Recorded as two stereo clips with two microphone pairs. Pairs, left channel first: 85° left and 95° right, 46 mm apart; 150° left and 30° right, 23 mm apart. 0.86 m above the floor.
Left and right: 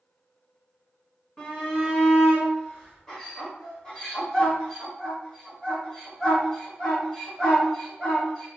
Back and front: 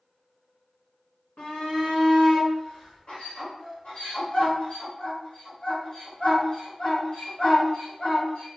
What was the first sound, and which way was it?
A shout, 150° left.